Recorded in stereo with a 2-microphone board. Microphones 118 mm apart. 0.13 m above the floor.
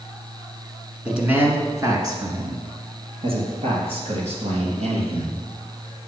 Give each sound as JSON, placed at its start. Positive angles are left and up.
{"t": 1.1, "sound": "a man speaking", "side_deg": -5, "distance_m": 1.4}